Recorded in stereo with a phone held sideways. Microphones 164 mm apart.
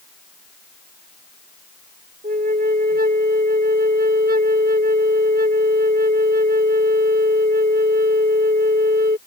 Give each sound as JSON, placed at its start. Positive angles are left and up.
{"t": 2.2, "sound": "a flute", "side_deg": -65}